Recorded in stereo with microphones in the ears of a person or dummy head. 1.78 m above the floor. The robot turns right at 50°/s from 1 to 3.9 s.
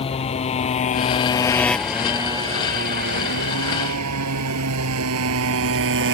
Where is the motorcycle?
30° left (ahead or behind); by 6.1 s 60° right (ahead or behind).